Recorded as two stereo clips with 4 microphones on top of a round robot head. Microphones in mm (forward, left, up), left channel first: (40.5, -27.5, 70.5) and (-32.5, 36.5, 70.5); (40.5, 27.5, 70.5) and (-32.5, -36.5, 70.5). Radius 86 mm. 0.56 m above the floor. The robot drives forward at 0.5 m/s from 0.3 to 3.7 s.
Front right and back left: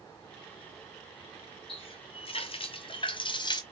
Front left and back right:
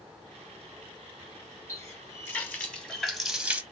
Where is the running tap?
20° right, 1.3 m; by 3.6 s 70° right, 0.7 m.